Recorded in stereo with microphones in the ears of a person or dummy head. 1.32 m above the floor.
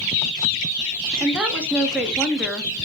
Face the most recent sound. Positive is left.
turn(degrees=-5)  # may be behind; listen again after turning